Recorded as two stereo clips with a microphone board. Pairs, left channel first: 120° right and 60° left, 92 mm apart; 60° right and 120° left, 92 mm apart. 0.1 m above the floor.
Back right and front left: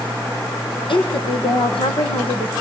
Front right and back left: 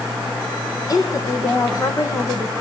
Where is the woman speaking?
105° right, 4.5 m; by 2.5 s 120° right, 6 m.